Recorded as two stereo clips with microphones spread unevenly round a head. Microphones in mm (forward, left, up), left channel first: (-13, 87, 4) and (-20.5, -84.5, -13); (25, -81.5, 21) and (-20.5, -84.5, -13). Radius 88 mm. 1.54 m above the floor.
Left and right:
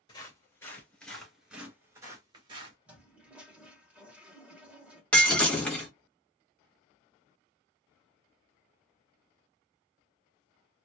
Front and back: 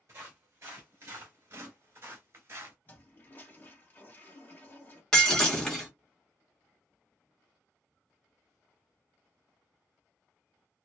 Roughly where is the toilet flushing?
Ahead.